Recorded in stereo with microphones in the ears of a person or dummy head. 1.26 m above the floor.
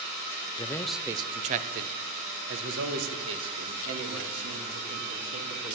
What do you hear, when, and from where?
0.6 s a man speaking: 25° left (ahead or behind), 0.6 m; by 5.8 s 80° right, 3.5 m